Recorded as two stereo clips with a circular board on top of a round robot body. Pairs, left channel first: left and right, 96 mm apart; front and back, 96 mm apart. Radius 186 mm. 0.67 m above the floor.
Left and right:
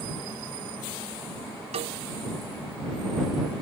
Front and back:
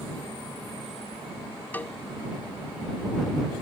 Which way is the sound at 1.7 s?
75° right.